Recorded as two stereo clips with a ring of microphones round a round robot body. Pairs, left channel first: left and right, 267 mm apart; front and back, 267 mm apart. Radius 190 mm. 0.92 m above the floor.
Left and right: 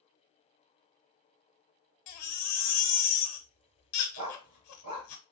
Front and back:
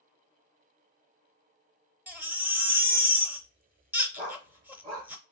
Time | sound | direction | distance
2.1 | a baby crying | 95° left | 0.8 m
4.2 | a dog barking | 100° right | 1.9 m